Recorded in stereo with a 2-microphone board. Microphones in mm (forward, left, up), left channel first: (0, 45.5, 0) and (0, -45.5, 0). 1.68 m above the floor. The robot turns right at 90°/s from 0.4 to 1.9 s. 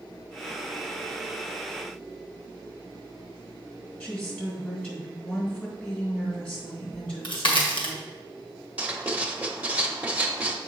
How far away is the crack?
About 1.5 m.